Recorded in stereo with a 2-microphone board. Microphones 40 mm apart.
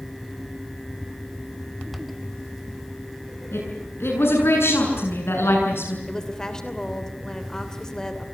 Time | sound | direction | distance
3.5 | a woman speaking | 80° left | 8 m
6.1 | a woman speaking | 15° left (ahead or behind) | 2.5 m